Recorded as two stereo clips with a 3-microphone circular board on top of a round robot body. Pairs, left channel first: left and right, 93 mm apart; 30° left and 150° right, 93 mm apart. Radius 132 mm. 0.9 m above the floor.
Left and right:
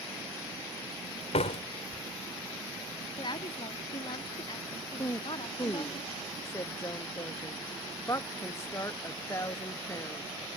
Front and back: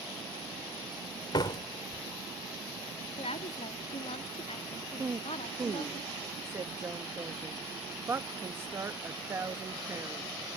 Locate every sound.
1.3 s a door slam: 80° left
3.2 s a woman speaking: 50° left
5.0 s a woman speaking: 145° left